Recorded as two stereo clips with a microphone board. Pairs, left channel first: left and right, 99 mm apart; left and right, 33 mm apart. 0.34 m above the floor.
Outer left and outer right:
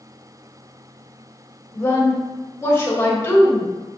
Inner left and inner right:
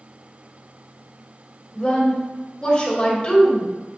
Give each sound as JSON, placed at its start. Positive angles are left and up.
{"t": 1.7, "sound": "a woman speaking", "side_deg": 25, "distance_m": 1.4}